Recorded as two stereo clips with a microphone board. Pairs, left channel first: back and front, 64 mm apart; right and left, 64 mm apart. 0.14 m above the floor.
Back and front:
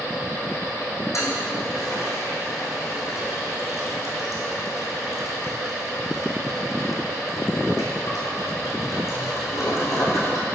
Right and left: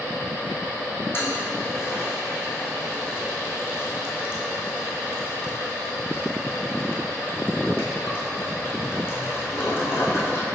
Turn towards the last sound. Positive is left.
turn(degrees=-140)